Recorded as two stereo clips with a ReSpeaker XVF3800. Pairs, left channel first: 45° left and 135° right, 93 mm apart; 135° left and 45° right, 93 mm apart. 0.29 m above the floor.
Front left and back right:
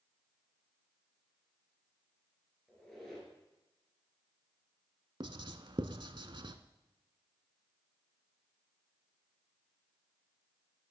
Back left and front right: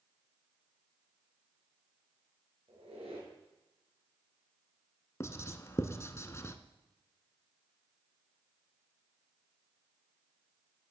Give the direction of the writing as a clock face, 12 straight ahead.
6 o'clock.